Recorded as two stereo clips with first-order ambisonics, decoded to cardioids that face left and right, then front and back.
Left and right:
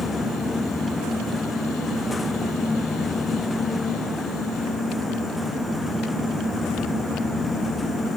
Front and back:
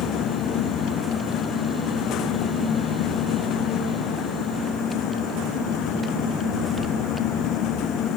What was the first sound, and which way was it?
Only background noise.